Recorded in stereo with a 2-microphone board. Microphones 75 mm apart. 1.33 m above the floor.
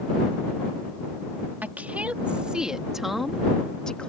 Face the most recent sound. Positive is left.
turn(degrees=15)  # may be behind; listen again after turning